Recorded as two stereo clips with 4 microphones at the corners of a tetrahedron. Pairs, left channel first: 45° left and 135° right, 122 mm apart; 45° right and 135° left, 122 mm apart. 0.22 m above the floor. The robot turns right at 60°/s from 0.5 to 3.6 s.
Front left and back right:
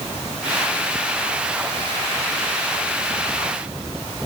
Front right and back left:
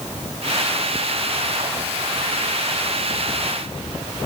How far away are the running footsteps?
I don't hear running footsteps.